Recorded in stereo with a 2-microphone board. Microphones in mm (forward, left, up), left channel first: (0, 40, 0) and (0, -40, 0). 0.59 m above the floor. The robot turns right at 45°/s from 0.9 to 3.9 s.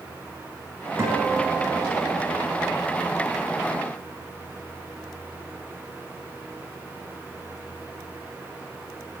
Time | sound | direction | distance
1.0 | a guitar | 35° right | 4 m